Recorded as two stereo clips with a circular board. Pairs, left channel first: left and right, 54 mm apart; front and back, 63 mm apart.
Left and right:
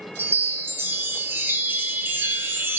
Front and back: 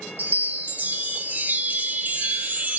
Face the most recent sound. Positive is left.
turn(degrees=-125)